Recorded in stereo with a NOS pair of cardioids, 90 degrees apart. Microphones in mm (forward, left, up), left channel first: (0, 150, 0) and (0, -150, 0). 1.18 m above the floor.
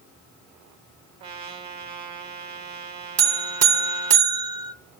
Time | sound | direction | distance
1.2 | a trumpet | 65° right | 1.6 m
3.2 | a buzzer | 55° right | 1.1 m